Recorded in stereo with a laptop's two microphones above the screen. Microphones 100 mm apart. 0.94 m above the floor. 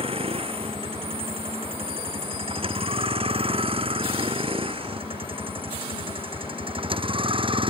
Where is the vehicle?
65° right (ahead or behind); by 7.7 s 55° right (ahead or behind).